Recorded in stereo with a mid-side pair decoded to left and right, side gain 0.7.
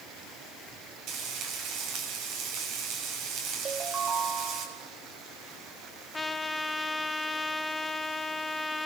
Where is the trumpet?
15° left, 1.2 m.